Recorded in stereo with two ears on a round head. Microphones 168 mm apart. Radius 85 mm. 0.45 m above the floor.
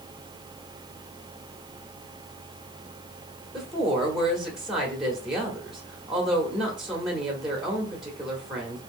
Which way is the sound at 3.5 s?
Centre (ahead or behind).